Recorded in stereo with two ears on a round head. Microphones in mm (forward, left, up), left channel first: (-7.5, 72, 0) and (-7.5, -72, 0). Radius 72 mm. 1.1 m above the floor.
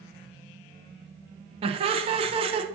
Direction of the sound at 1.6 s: 35° right (ahead or behind).